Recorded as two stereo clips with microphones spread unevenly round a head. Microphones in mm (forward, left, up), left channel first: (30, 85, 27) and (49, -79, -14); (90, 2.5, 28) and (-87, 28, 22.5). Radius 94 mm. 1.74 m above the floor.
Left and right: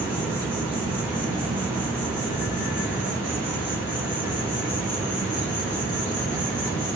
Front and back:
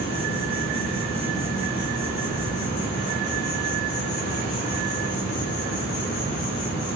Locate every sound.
0.0 s an insect: 5° right, 5 m